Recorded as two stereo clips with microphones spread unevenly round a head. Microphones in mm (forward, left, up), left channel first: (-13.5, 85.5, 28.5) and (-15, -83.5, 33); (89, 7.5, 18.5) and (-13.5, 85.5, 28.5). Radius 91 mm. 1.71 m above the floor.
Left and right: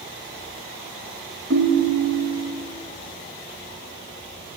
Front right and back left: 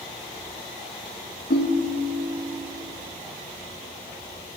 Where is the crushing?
No crushing in this recording.